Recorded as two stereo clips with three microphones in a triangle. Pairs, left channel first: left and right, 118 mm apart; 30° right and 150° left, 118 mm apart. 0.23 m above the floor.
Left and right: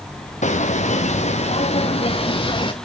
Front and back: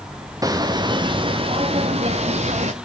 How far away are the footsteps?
About 1.7 m.